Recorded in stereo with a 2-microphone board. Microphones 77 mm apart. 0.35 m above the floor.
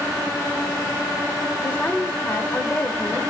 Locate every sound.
1.6 s a woman speaking: 25° left (ahead or behind), 1.1 m